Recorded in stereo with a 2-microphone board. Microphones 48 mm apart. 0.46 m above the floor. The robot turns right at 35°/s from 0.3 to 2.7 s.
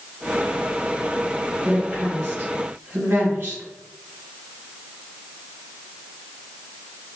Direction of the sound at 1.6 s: 30° right (ahead or behind).